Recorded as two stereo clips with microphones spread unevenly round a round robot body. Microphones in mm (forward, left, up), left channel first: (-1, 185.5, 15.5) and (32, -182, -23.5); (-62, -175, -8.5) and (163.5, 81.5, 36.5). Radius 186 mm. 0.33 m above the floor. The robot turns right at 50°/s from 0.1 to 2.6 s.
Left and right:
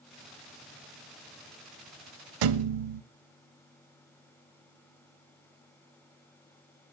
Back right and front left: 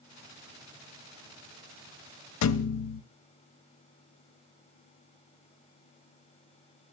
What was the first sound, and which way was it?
A thud, 100° right.